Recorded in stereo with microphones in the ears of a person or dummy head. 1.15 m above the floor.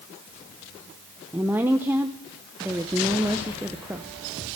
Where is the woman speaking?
5° right (ahead or behind), 0.7 m.